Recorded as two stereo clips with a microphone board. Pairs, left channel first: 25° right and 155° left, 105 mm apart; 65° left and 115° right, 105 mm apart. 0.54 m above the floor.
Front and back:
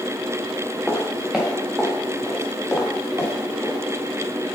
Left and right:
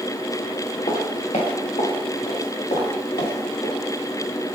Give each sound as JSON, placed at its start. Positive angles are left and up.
{"t": 0.9, "sound": "footsteps", "azimuth_deg": 75, "distance_m": 3.5}